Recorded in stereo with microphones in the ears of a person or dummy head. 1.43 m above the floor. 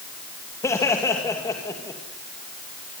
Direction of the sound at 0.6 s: 20° left (ahead or behind).